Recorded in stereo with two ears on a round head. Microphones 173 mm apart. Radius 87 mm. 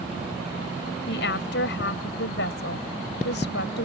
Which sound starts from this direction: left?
A woman speaking, at 1.1 s.